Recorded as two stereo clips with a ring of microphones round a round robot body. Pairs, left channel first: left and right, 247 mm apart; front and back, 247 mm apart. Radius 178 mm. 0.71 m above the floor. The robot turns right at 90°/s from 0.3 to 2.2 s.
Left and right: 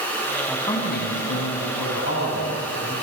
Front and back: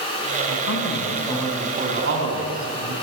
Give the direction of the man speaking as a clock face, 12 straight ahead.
12 o'clock.